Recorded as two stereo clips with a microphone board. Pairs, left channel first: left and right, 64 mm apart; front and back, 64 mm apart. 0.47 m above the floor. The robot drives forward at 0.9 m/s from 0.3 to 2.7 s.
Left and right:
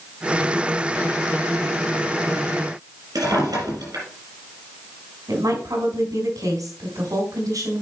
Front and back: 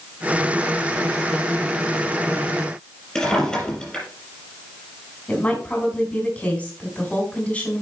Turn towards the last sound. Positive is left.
turn(degrees=-70)